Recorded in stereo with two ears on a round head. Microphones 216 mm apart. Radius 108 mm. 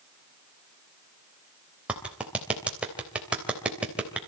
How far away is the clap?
About 3 m.